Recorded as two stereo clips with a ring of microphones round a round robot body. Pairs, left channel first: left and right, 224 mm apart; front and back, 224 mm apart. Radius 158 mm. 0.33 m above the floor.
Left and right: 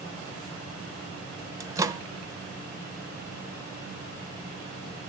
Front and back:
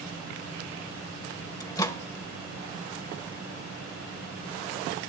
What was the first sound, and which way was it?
A microwave, 45° right.